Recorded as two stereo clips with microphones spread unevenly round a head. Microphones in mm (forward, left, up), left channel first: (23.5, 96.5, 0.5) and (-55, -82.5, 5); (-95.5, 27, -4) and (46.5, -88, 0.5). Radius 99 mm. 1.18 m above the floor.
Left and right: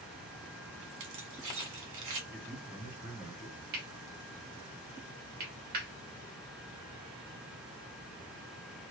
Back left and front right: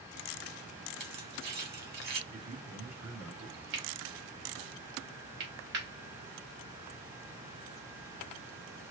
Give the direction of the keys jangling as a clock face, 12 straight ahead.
3 o'clock.